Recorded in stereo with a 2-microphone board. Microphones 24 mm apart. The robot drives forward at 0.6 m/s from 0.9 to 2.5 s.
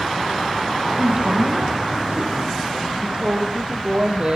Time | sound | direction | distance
1.0 | a man speaking | 75° right (ahead or behind) | 6.5 m
3.0 | a woman speaking | 50° right (ahead or behind) | 5.5 m